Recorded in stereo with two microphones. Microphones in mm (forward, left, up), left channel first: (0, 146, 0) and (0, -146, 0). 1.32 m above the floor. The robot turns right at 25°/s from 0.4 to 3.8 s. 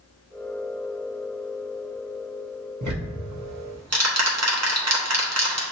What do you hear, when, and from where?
2.8 s ticking: 65° right (ahead or behind), 1.0 m; by 5.6 s 55° right (ahead or behind), 1.0 m